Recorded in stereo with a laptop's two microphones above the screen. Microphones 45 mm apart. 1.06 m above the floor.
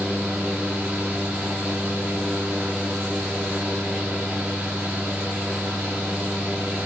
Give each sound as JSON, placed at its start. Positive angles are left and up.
{"t": 0.0, "sound": "a fan", "side_deg": -20, "distance_m": 2.0}